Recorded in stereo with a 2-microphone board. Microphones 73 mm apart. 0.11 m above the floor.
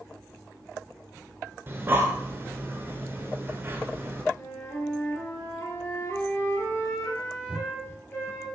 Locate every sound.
1.7 s breathing: 30° right (ahead or behind), 0.7 m
4.3 s a flute: 40° left (ahead or behind), 1.8 m